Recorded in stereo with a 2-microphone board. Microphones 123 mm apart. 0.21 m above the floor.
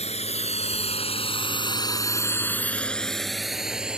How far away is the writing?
No writing in this recording.